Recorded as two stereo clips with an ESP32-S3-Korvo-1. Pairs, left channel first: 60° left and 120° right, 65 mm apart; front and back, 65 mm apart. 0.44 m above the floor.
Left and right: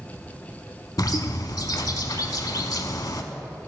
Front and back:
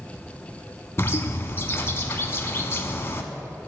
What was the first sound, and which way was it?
A bird, 50° left.